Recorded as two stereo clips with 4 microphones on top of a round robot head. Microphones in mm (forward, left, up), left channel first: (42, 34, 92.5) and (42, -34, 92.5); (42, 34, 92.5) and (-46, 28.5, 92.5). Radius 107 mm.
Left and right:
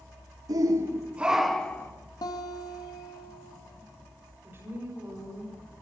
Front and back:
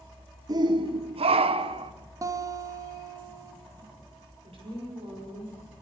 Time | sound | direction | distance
0.5 | a shout | 125° right | 1.2 m
2.2 | a guitar | 130° left | 2 m
4.4 | a woman speaking | 150° right | 6 m